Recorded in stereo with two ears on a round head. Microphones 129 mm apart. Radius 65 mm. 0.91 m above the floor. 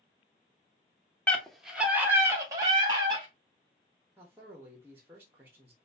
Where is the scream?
10° left (ahead or behind), 1.1 m; by 3.3 s 30° right (ahead or behind), 2.5 m.